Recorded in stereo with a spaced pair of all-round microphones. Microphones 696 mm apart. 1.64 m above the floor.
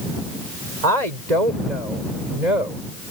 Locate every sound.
0.8 s a woman speaking: 70° right (ahead or behind); by 2.8 s 85° right